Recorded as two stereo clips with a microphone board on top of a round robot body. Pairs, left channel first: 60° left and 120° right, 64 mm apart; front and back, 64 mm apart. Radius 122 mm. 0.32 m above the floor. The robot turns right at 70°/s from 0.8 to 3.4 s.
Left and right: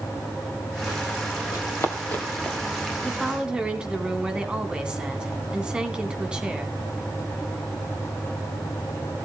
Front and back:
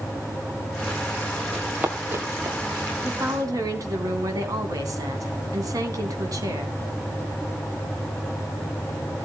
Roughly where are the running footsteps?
Left.